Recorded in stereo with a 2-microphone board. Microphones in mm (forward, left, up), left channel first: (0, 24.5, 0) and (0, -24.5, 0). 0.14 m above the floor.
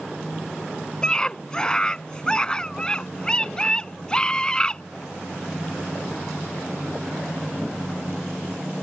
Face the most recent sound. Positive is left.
turn(degrees=20)  # may be behind; listen again after turning